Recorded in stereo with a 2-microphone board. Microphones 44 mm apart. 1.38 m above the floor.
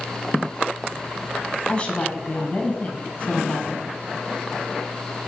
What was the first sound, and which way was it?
A woman speaking, 25° left (ahead or behind).